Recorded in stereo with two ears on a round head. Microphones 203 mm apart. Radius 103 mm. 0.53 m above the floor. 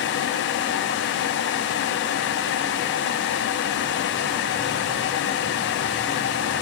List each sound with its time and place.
Only background noise.